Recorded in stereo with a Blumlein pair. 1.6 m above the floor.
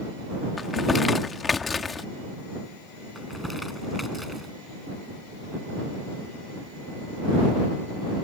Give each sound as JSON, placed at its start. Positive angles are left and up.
{"t": 0.6, "sound": "crumpling", "azimuth_deg": 15}
{"t": 3.1, "sound": "crumpling", "azimuth_deg": 5}